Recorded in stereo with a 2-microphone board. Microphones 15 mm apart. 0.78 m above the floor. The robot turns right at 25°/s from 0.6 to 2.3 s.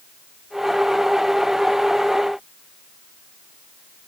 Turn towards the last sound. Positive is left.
No sound to turn to.